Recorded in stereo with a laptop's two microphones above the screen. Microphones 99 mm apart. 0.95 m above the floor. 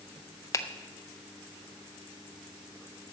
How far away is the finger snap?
About 0.5 m.